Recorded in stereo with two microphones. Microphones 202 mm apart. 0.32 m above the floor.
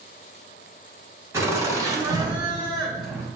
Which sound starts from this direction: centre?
Laughter, at 1.3 s.